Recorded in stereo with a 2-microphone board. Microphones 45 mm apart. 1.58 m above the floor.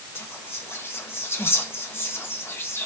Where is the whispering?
55° left (ahead or behind), 1.6 m.